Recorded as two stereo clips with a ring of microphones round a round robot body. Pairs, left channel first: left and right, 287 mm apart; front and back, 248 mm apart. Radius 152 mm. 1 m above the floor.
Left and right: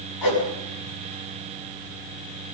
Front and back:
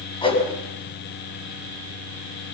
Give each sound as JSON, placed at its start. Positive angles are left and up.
{"t": 0.2, "sound": "a whoosh", "azimuth_deg": 70, "distance_m": 5.5}